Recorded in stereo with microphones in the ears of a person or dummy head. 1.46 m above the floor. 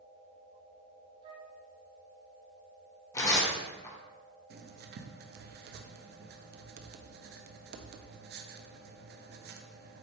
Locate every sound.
1.2 s a flute: 35° right (ahead or behind), 1.1 m
3.1 s tearing paper: 10° left (ahead or behind), 1.7 m
4.5 s writing: 45° right (ahead or behind), 0.6 m